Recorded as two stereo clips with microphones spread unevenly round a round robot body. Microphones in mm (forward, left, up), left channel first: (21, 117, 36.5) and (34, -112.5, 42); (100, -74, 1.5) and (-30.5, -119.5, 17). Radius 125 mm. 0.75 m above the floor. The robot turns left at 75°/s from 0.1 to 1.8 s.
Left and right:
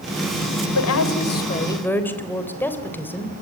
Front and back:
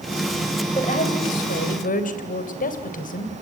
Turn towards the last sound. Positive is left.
turn(degrees=10)